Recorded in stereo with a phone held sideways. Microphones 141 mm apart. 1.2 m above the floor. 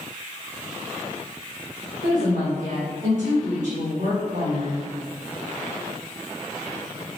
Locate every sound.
2.0 s a woman speaking: 85° right, 1.2 m